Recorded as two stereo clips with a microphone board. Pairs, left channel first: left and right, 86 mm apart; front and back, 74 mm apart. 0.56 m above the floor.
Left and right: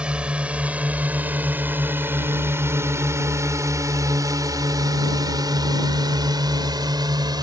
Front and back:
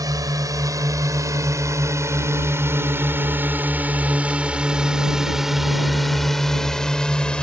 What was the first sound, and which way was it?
A drone, 165° right.